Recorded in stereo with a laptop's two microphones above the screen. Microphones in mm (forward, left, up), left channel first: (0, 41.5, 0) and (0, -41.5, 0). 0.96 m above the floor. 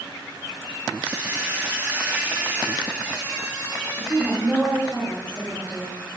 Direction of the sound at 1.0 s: 15° right (ahead or behind).